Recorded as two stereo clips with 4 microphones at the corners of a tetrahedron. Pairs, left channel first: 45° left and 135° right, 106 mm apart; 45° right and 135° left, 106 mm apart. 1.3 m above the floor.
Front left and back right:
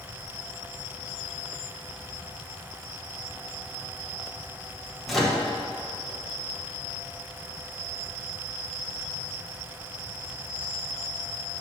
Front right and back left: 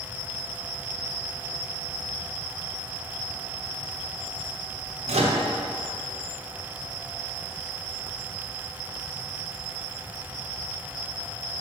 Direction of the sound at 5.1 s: 135° left.